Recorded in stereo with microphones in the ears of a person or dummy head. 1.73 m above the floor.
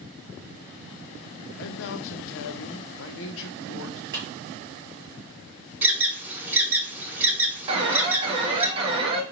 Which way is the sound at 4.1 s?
25° right (ahead or behind).